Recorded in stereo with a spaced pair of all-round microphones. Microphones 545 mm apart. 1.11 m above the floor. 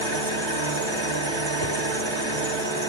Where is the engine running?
50° right (ahead or behind), 1.9 m.